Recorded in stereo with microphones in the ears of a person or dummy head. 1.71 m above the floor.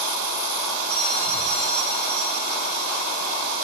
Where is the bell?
55° left (ahead or behind), 8.5 m.